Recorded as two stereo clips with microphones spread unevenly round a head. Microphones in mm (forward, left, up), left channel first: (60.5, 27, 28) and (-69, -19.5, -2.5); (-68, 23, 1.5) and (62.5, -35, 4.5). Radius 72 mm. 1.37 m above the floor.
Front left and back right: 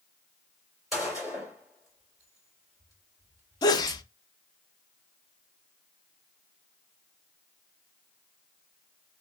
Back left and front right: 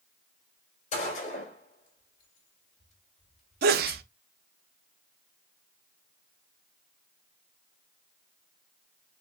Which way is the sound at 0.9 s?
110° left.